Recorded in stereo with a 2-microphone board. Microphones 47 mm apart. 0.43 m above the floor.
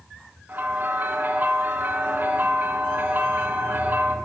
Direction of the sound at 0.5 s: 45° right (ahead or behind).